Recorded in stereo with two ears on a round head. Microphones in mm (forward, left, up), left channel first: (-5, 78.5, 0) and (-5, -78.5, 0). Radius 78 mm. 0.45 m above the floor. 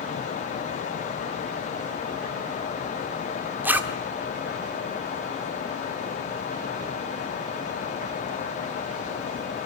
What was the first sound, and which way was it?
A zipper, 10° right (ahead or behind).